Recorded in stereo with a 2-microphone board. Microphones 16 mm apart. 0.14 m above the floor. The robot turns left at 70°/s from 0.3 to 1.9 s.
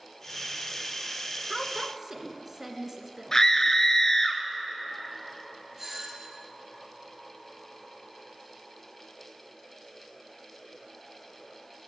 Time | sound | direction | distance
1.5 | a woman speaking | 5° right (ahead or behind) | 1.6 m
3.3 | a scream | 30° left (ahead or behind) | 1.6 m
5.8 | a doorbell | 20° right (ahead or behind) | 3 m